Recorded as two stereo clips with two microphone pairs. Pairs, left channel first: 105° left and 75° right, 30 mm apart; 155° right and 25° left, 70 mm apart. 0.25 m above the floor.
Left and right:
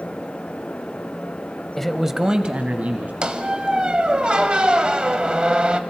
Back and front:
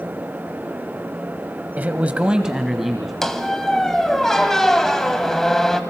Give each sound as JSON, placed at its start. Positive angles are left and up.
{"t": 1.8, "sound": "a man speaking", "azimuth_deg": 50, "distance_m": 1.0}
{"t": 3.2, "sound": "a squeak", "azimuth_deg": -80, "distance_m": 1.0}